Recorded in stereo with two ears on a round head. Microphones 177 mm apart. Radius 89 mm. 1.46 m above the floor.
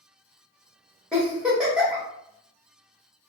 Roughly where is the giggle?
Centre.